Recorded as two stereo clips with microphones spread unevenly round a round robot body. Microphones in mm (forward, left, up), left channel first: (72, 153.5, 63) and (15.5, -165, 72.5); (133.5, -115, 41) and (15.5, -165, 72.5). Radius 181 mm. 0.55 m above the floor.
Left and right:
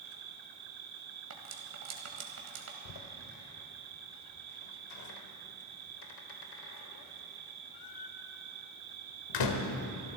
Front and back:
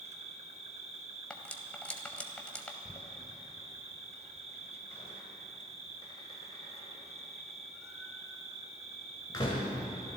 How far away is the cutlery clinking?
About 2 m.